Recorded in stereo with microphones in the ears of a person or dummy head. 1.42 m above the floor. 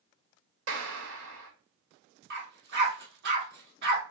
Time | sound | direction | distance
0.7 | a clap | 85° right | 1.6 m
2.3 | a dog barking | 60° right (ahead or behind) | 1.6 m